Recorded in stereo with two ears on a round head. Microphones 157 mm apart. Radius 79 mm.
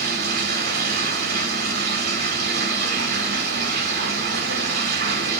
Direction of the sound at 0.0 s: 60° right (ahead or behind).